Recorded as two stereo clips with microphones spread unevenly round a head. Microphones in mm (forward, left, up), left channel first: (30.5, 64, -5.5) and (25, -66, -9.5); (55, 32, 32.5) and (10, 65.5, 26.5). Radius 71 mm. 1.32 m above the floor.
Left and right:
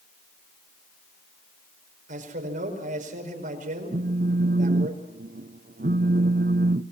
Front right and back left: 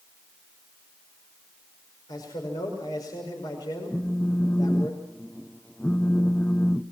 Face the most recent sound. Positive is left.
turn(degrees=-125)